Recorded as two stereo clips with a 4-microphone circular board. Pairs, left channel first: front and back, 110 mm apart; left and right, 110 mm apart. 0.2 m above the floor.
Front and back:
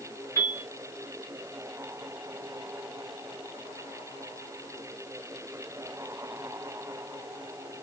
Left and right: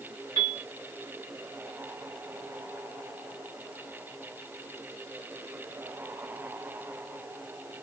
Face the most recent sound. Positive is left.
turn(degrees=-50)